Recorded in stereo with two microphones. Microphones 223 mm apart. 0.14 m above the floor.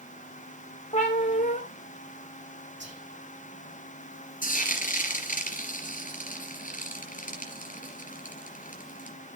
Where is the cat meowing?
35° left (ahead or behind), 5.5 m.